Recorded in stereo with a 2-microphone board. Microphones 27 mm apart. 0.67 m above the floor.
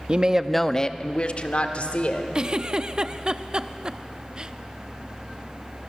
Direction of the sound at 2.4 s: 30° right (ahead or behind).